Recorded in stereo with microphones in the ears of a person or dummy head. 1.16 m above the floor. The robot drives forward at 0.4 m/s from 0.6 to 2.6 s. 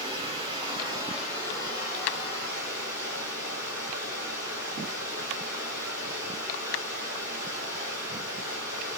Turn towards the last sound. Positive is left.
turn(degrees=-15)  # may be behind; listen again after turning